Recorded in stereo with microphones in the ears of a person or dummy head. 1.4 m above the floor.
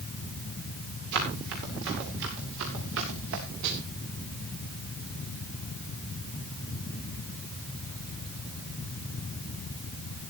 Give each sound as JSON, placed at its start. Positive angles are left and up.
{"t": 1.1, "sound": "running footsteps", "side_deg": -60, "distance_m": 8.0}
{"t": 3.6, "sound": "a snare drum", "side_deg": -70, "distance_m": 5.5}